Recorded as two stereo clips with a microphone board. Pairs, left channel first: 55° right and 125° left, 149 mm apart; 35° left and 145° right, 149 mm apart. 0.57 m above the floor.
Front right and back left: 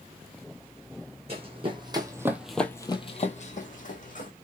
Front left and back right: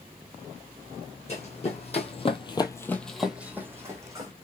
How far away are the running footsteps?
About 1.4 m.